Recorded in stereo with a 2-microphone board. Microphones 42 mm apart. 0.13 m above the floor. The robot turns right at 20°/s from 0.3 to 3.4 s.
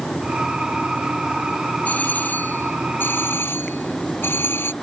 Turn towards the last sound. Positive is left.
turn(degrees=70)